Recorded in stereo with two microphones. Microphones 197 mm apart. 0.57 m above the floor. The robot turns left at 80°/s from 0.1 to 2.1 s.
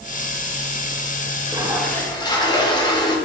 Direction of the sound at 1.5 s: 150° right.